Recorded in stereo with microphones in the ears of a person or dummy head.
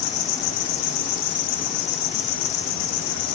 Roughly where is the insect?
Left.